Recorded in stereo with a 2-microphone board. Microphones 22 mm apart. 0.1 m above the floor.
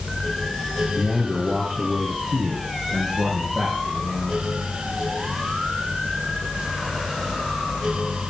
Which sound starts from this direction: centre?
A man speaking, at 1.0 s.